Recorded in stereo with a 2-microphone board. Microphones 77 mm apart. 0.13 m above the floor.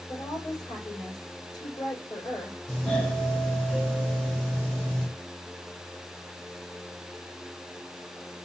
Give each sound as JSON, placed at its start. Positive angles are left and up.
{"t": 0.1, "sound": "a woman speaking", "side_deg": 60, "distance_m": 6.5}
{"t": 2.7, "sound": "a doorbell", "side_deg": 10, "distance_m": 5.5}